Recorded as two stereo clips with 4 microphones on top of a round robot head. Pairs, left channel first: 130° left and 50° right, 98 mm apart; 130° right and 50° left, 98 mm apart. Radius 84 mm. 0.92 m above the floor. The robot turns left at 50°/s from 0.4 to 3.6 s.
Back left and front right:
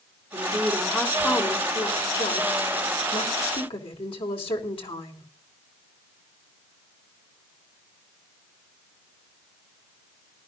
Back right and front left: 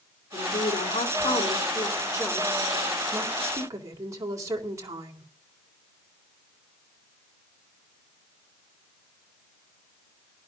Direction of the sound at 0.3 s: 95° right.